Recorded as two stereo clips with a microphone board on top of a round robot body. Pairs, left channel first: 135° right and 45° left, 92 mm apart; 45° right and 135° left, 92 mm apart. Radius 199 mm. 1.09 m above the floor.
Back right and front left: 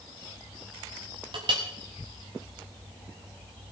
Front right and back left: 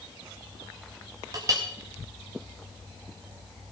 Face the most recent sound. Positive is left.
turn(degrees=80)